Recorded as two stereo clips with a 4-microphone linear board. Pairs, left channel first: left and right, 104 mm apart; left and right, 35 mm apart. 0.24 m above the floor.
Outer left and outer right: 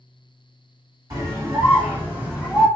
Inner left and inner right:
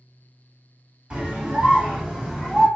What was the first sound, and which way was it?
A scream, 35° right (ahead or behind).